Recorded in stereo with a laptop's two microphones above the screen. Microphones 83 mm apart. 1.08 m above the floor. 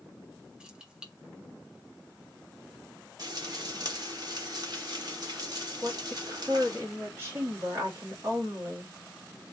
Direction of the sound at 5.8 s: 30° right (ahead or behind).